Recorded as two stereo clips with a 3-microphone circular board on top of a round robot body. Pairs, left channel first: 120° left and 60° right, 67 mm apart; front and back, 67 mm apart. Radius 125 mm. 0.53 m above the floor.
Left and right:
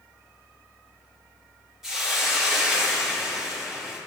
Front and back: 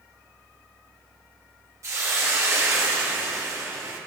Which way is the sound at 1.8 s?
140° right.